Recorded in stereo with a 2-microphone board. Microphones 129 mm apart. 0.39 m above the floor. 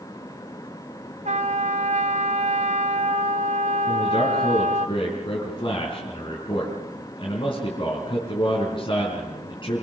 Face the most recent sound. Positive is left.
turn(degrees=40)  # may be behind; listen again after turning